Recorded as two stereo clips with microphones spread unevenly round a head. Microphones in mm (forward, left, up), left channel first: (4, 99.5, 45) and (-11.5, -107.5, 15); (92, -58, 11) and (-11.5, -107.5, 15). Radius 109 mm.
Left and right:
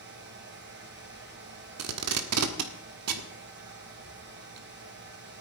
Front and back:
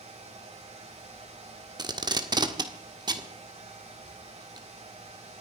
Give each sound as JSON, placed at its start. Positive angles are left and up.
{"t": 0.0, "sound": "a fan", "azimuth_deg": -130, "distance_m": 3.5}
{"t": 1.8, "sound": "tape being pulled", "azimuth_deg": -110, "distance_m": 1.6}